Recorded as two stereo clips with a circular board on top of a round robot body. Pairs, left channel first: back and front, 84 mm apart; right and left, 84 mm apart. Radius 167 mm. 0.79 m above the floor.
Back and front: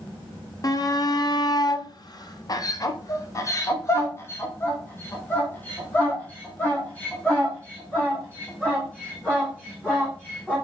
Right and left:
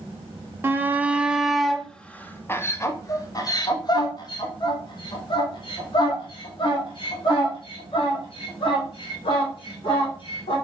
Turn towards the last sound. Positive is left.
turn(degrees=-100)